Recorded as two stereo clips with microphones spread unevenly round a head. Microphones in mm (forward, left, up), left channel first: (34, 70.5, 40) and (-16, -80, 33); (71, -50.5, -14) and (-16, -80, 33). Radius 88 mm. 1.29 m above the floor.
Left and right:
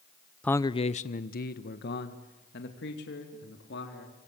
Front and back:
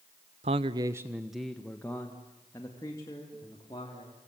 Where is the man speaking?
155° left, 0.7 m; by 4.3 s 80° left, 4 m.